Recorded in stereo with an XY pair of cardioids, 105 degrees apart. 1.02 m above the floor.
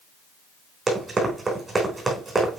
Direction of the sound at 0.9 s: 25° right.